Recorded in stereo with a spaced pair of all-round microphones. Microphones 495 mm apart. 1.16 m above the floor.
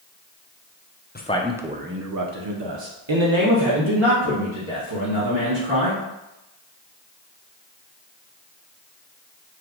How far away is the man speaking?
About 0.5 m.